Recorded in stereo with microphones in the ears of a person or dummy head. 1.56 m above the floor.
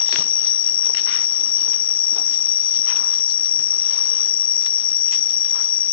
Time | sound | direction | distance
0.0 | an insect | 5° left (ahead or behind) | ?